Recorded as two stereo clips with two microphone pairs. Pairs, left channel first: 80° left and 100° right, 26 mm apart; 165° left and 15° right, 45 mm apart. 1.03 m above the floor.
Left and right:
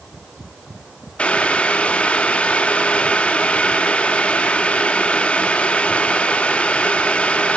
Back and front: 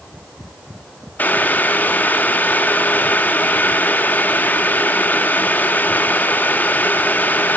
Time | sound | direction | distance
1.2 | boiling | 120° left | 0.9 m